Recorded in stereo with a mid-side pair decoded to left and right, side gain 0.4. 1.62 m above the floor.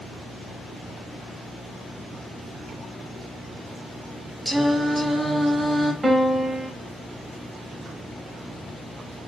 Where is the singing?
5° right, 0.5 m.